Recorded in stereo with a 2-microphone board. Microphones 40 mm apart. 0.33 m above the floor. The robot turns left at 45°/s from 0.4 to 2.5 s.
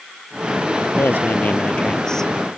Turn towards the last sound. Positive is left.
turn(degrees=-5)